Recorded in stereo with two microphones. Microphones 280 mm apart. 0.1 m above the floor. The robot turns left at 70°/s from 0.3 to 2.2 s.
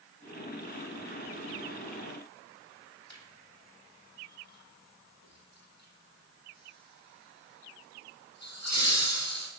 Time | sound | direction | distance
3.1 | laughter | 65° left (ahead or behind) | 3.5 m